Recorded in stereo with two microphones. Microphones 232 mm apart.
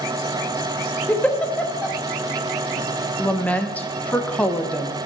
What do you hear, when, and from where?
1.1 s a giggle: 5° left (ahead or behind), 1.0 m
3.2 s a woman speaking: 5° left (ahead or behind), 1.1 m